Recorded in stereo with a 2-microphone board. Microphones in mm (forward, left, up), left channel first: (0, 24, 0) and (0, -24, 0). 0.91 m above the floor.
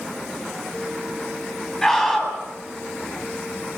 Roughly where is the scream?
Centre.